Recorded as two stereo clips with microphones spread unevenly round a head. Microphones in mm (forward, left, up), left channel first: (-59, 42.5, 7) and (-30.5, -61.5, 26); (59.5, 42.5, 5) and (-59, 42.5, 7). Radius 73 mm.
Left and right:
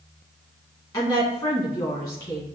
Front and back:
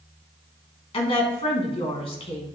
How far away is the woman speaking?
About 2 m.